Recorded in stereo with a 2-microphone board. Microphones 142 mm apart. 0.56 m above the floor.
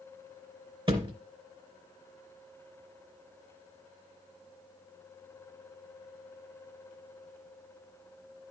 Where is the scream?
No scream in this recording.